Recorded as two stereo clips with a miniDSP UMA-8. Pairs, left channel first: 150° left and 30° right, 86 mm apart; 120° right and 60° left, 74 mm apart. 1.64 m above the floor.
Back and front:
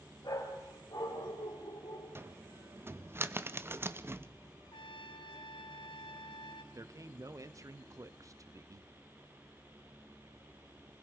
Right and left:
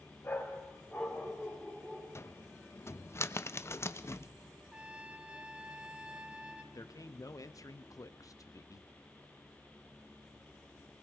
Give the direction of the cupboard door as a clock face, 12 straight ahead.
3 o'clock.